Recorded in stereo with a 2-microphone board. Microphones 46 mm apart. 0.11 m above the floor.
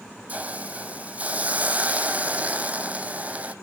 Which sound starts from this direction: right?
A hiss, at 0.3 s.